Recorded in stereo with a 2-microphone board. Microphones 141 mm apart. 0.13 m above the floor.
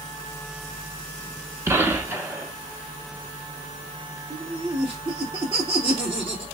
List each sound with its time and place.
1.7 s a gunshot: 20° right (ahead or behind), 0.6 m
4.3 s laughter: 40° right (ahead or behind), 1.7 m